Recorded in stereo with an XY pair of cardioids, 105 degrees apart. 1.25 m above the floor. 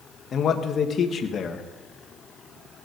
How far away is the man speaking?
About 1.5 m.